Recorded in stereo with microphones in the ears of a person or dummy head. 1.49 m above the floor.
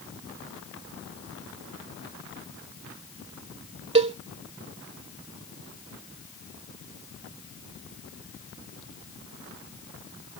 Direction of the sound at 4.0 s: 35° right (ahead or behind).